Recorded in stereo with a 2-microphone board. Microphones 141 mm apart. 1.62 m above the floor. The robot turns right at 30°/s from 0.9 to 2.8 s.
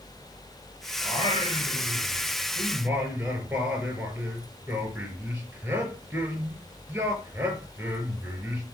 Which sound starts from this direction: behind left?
Singing, at 1.0 s.